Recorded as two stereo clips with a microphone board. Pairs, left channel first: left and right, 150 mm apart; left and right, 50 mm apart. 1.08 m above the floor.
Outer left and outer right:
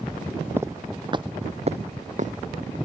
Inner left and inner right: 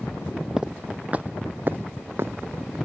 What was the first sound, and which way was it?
Footsteps, 15° right (ahead or behind).